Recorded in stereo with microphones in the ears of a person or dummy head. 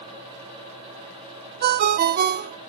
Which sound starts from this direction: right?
A ringtone, at 1.6 s.